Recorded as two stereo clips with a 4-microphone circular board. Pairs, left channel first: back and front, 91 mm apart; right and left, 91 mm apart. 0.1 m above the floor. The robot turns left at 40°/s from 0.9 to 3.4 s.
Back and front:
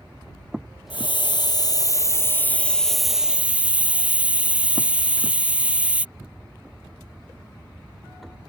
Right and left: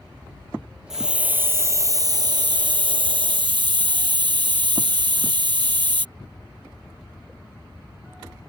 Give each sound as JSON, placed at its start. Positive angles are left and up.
{"t": 0.9, "sound": "a hiss", "azimuth_deg": 175}